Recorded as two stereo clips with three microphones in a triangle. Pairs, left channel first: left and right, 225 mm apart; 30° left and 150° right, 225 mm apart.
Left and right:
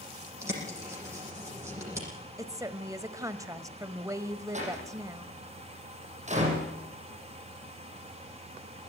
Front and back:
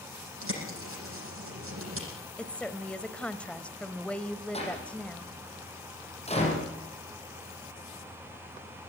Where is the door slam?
30° right, 7 m.